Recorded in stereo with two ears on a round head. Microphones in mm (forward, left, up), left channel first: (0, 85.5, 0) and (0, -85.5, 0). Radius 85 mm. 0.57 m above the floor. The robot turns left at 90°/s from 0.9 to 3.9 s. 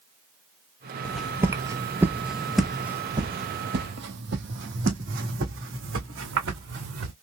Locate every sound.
1.1 s footsteps: 10° left (ahead or behind), 0.8 m; by 7.1 s 80° right, 2.5 m